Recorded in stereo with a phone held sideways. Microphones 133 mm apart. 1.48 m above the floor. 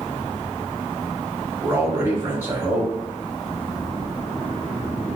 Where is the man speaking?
40° right (ahead or behind), 0.8 m.